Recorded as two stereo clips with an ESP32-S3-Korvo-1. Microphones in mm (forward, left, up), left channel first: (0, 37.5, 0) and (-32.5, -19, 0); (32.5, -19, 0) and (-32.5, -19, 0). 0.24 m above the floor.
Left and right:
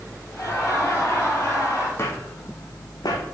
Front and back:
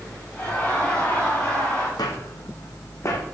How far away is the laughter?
About 2 m.